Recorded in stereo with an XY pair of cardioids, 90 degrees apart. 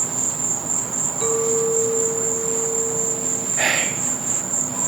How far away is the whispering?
About 0.7 m.